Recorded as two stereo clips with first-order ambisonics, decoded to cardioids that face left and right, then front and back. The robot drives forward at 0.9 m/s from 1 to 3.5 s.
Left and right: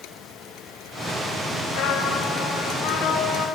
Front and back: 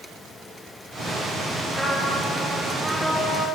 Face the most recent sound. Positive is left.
turn(degrees=120)